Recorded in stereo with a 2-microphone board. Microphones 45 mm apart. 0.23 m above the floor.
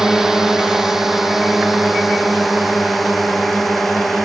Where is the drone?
10° right (ahead or behind); by 4.3 s 5° left (ahead or behind).